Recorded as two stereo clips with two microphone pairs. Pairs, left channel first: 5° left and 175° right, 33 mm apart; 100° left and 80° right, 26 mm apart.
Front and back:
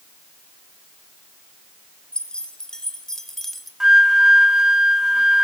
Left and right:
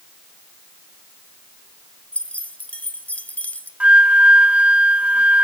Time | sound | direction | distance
2.1 | keys jangling | 70° left | 2.5 m
3.8 | a flute | 105° right | 1.2 m